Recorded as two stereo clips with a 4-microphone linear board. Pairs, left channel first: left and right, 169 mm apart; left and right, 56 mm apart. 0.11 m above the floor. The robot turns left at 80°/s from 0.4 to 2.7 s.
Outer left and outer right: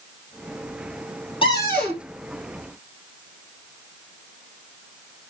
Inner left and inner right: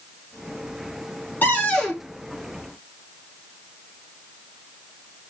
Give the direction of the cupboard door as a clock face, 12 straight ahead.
11 o'clock.